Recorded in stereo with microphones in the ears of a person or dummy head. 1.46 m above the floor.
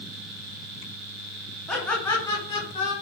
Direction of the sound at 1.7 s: Centre (ahead or behind).